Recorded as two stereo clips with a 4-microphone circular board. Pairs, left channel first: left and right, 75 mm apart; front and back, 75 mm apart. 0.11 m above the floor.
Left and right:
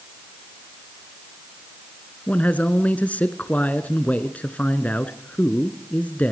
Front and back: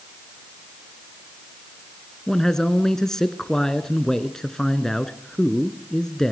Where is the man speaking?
70° left, 1.4 m.